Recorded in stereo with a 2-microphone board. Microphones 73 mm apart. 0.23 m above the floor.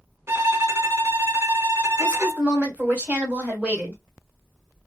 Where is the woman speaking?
20° right (ahead or behind), 1.6 m.